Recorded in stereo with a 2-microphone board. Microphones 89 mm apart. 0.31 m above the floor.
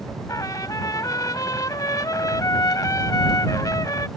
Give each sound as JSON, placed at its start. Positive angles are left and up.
{"t": 0.3, "sound": "a trumpet", "side_deg": 40}